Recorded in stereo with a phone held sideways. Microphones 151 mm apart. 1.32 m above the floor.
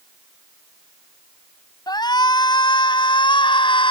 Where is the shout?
30° left (ahead or behind); by 3.9 s 35° left (ahead or behind).